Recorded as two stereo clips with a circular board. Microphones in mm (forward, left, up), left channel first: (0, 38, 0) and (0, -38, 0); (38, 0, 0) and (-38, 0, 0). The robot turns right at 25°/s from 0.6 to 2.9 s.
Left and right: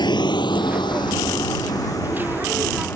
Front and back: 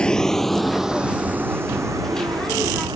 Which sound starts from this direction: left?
A vehicle, at 0.0 s.